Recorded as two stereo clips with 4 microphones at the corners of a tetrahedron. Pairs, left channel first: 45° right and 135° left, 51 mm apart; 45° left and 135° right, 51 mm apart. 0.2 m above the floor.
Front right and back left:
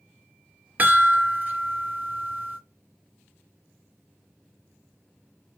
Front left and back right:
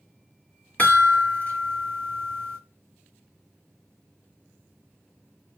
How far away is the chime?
About 2.5 m.